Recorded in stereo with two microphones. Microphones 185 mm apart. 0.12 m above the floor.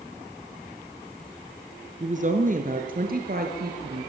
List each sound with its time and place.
2.0 s a woman speaking: 40° right (ahead or behind), 2.0 m; by 4.1 s 60° right (ahead or behind), 3 m